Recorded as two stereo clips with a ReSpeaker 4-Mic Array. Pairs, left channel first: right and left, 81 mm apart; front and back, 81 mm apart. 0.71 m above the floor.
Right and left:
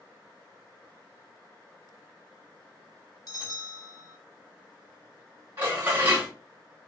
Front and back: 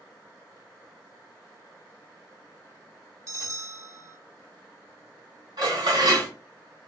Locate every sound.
3.3 s a bell: 135° right, 1.0 m
5.6 s dishes clattering: 150° left, 1.9 m